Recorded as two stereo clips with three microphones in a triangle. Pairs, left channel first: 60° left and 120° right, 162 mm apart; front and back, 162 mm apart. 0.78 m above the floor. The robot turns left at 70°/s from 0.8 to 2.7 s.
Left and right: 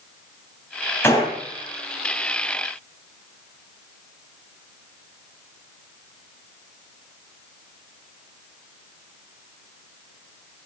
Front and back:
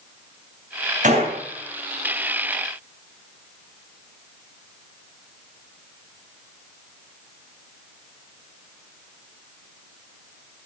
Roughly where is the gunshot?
Behind left.